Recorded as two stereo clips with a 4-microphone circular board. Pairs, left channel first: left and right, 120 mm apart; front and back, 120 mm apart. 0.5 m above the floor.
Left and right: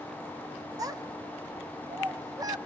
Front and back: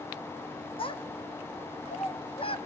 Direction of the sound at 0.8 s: 35° right.